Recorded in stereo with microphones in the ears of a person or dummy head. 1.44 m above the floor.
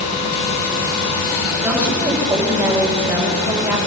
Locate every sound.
1.6 s a woman speaking: 15° right (ahead or behind), 5.5 m